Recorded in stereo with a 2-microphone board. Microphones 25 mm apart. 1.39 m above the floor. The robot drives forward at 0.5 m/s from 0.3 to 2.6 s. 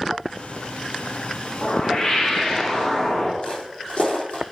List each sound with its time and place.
1.6 s a whoosh: 35° left (ahead or behind), 1.9 m; by 3.3 s 30° left (ahead or behind), 2.5 m
3.4 s footsteps: 35° left (ahead or behind), 3 m